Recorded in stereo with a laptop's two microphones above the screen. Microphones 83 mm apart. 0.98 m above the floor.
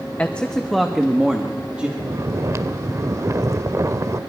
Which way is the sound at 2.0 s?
40° right (ahead or behind).